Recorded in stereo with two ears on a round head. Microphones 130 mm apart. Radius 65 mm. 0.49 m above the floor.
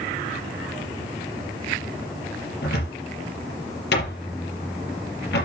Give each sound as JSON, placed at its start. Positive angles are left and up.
{"t": 2.6, "sound": "a cupboard door", "side_deg": 90, "distance_m": 5.0}